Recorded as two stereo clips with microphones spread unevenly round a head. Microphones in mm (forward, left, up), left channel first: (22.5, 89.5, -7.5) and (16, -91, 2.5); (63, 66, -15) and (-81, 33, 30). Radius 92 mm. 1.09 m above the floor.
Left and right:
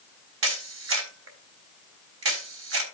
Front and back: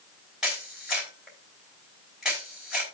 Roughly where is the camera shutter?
Right.